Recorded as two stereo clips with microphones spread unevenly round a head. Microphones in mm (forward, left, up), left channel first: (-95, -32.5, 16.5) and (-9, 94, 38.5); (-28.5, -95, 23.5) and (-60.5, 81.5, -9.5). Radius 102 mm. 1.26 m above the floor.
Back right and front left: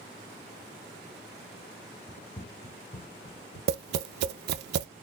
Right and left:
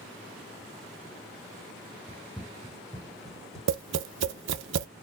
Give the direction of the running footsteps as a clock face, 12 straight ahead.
6 o'clock.